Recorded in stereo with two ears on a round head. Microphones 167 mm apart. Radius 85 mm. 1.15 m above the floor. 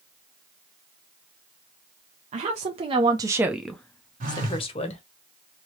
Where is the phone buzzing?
45° right (ahead or behind), 1.3 m.